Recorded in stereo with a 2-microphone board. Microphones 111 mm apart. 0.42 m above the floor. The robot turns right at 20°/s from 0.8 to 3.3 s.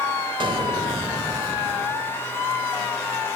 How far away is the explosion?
About 0.7 m.